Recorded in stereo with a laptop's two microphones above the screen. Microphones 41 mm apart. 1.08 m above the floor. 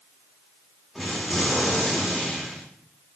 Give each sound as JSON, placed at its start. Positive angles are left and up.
{"t": 0.9, "sound": "an explosion", "side_deg": 0, "distance_m": 1.8}